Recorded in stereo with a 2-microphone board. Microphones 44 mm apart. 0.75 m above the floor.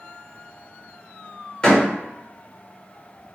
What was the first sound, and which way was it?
A door slam, 25° left (ahead or behind).